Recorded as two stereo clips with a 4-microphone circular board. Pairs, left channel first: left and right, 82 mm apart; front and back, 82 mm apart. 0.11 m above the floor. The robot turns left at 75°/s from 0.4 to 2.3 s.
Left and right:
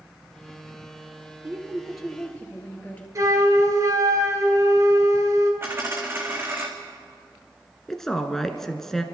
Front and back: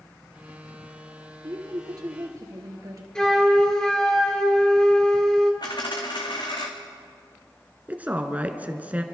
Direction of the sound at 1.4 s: 140° right.